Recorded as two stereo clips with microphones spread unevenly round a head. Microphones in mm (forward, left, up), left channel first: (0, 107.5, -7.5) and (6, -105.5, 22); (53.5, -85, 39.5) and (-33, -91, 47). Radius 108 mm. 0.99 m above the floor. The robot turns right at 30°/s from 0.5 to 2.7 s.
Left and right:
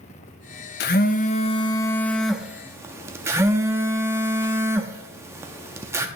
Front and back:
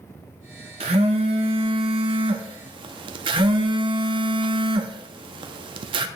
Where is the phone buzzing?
140° left, 0.6 m; by 6.1 s 165° right, 0.6 m.